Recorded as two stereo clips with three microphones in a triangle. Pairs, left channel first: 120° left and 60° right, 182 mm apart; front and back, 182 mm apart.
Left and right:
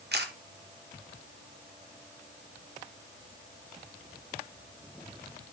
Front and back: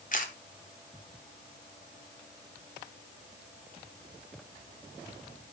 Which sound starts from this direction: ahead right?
A camera shutter, at 0.1 s.